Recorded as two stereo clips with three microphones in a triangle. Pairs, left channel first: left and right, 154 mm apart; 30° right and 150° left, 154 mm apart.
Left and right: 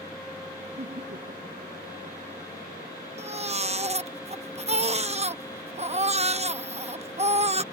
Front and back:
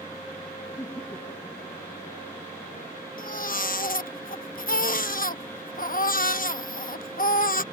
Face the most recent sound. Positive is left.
turn(degrees=-45)